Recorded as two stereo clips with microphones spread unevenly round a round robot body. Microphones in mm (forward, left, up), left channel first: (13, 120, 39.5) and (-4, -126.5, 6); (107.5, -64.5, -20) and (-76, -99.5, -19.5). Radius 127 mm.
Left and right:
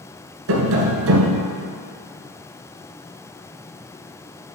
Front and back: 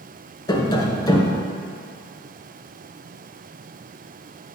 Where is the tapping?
60° right, 1.5 m.